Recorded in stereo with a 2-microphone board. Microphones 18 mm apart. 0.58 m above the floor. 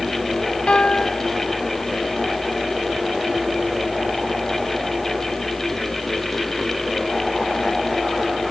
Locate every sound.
0.7 s a piano: 80° left